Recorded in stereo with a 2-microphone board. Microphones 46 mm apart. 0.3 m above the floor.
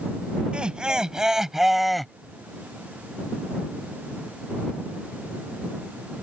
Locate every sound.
0.5 s laughter: 20° right (ahead or behind); by 2.1 s 5° left (ahead or behind)